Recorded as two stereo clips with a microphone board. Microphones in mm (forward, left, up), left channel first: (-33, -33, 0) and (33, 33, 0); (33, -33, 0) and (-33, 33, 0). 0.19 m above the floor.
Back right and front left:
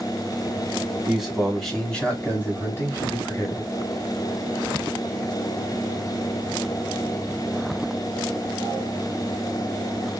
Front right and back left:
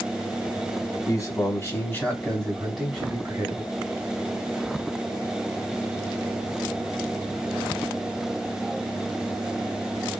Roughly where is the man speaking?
Ahead right.